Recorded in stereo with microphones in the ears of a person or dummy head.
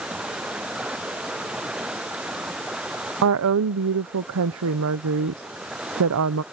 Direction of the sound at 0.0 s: 5° right (ahead or behind).